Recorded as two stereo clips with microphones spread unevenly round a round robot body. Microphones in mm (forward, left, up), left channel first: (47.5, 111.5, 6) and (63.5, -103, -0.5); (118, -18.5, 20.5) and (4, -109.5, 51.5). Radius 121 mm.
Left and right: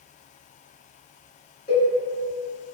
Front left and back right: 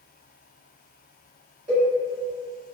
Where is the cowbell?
155° left, 1.4 m.